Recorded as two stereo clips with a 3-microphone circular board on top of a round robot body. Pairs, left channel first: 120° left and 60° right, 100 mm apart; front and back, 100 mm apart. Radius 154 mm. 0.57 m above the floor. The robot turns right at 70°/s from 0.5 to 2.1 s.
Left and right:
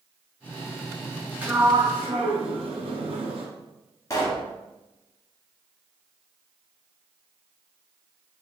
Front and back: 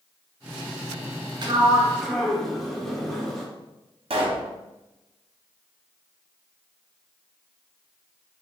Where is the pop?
175° left, 1.0 m.